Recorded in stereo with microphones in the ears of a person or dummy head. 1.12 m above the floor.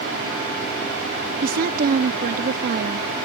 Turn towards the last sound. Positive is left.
turn(degrees=-45)  # may be behind; listen again after turning